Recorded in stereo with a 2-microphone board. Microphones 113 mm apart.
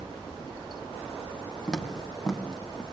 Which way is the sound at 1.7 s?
5° left (ahead or behind).